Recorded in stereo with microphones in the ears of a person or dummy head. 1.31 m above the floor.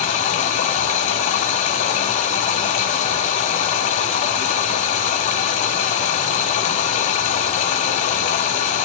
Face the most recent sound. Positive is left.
turn(degrees=40)  # may be behind; listen again after turning